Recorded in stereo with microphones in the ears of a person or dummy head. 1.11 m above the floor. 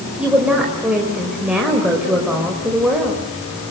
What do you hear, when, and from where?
0.2 s a woman speaking: 5° right (ahead or behind), 4.5 m